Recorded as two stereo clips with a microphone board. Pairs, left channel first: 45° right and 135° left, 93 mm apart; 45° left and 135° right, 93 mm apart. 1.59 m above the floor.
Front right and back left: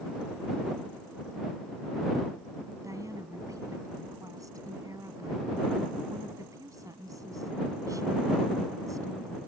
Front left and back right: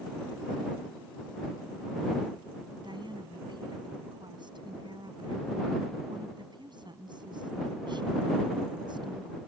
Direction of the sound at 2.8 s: 170° right.